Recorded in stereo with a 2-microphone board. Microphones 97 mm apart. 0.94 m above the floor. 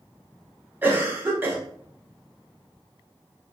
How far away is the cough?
About 0.6 m.